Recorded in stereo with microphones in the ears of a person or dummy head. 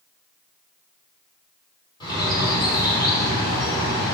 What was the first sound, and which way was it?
A bird, 25° left (ahead or behind).